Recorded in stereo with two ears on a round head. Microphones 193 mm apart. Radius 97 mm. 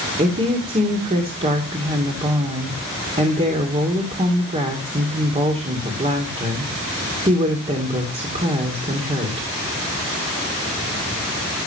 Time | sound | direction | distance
0.2 | a woman speaking | 30° right (ahead or behind) | 2.5 m